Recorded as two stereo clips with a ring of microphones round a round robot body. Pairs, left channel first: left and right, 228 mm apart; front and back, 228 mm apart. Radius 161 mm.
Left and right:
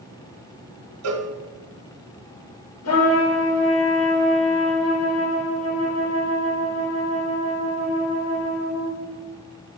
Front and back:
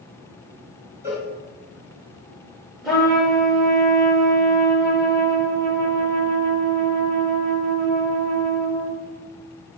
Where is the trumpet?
90° left, 5 m.